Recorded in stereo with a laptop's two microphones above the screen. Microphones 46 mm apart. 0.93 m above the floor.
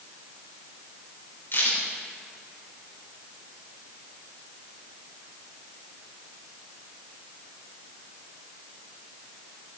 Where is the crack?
55° left (ahead or behind), 4.5 m.